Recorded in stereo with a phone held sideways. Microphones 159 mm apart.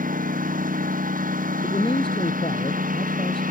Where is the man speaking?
35° left (ahead or behind).